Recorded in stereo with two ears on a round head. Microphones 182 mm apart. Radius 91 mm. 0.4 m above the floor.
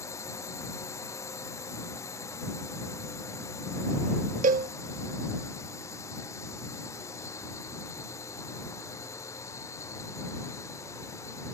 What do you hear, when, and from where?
0.0 s a drone: 15° left (ahead or behind)
4.4 s a cowbell: 40° right (ahead or behind)